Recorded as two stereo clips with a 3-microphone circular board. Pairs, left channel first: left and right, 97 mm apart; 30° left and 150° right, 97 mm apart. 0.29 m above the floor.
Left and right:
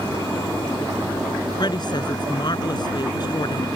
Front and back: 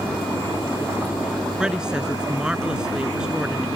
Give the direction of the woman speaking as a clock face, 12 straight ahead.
8 o'clock.